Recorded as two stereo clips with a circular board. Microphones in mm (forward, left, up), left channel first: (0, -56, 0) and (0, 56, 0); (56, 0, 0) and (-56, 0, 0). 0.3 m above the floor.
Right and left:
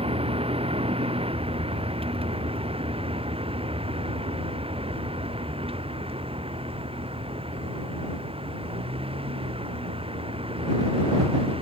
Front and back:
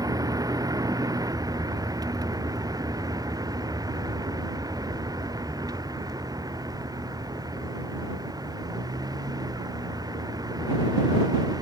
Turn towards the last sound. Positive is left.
turn(degrees=125)